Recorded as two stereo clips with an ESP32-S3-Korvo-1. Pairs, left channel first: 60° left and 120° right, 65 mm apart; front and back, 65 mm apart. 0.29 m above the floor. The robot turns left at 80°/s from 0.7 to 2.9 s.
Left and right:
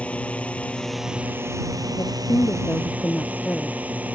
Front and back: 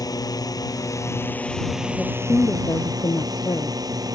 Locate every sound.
0.0 s a drone: 10° right; by 4.2 s 175° left
2.0 s a woman speaking: 80° left; by 3.8 s 5° left